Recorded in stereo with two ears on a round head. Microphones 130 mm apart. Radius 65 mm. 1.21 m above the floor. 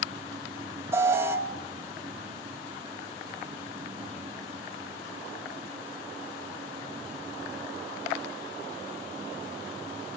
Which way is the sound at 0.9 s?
20° right (ahead or behind).